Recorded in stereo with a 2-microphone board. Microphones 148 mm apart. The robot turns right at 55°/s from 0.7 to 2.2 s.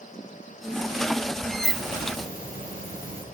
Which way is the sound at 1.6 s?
80° left.